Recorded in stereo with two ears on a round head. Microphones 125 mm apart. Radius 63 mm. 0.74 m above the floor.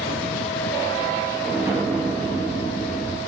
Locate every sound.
1.4 s an explosion: 20° right (ahead or behind), 0.8 m